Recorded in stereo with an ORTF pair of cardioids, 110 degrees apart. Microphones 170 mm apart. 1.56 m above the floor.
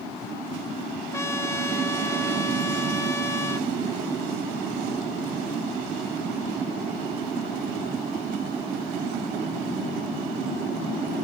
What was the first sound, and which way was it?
A trumpet, 15° left.